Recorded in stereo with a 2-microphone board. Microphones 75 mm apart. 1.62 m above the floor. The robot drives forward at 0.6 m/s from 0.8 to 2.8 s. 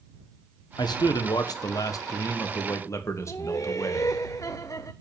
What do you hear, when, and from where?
0.8 s a man speaking: 75° left (ahead or behind), 1.4 m; by 4.2 s 40° left (ahead or behind), 2 m
3.3 s laughter: 45° left (ahead or behind), 0.6 m